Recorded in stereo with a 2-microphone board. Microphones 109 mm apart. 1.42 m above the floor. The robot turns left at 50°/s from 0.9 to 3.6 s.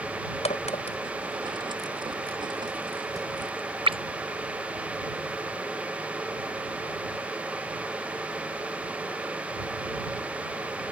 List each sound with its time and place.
0.5 s a crack: 80° left; by 4.0 s 55° right (ahead or behind)